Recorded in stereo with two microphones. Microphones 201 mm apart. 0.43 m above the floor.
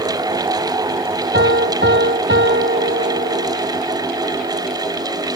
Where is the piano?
65° right (ahead or behind).